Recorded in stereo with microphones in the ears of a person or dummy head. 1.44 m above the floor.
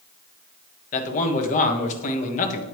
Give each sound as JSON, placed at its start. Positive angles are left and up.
{"t": 0.9, "sound": "a man speaking", "side_deg": 40, "distance_m": 1.1}